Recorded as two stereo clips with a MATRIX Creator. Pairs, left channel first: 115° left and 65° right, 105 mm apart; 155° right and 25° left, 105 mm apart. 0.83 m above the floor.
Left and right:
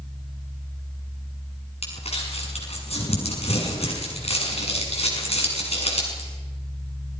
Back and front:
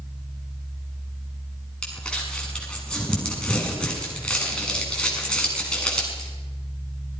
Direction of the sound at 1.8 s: 120° left.